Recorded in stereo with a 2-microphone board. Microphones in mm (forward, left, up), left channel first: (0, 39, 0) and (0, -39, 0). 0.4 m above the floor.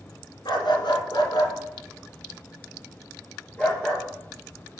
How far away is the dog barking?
About 1.5 m.